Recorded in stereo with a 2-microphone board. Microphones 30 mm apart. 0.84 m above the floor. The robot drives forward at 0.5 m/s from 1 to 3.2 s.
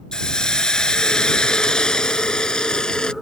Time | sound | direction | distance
0.1 | a hiss | 25° left (ahead or behind) | ?